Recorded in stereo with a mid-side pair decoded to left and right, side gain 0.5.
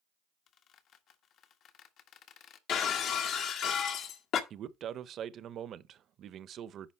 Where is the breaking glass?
70° left, 1.5 m.